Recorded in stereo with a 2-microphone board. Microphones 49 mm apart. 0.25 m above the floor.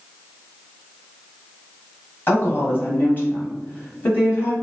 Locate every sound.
2.3 s a woman speaking: 40° left (ahead or behind), 1.4 m